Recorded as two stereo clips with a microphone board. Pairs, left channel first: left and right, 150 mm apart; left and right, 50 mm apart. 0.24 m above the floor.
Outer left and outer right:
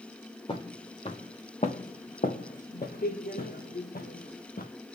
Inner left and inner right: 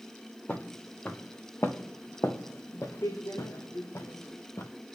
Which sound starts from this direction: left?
Footsteps, at 0.5 s.